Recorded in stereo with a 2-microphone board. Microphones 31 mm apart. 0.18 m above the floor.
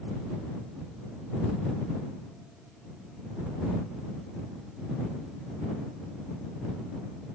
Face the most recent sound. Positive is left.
No sound to turn to.